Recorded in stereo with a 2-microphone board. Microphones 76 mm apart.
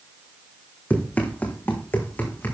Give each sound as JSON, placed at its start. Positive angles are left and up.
{"t": 0.9, "sound": "running footsteps", "side_deg": 20, "distance_m": 3.5}